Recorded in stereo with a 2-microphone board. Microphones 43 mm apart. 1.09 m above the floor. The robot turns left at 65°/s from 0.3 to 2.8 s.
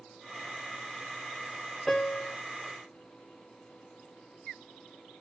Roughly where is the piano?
Behind.